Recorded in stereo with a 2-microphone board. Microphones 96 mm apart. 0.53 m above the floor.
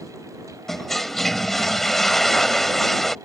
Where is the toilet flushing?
5° left (ahead or behind).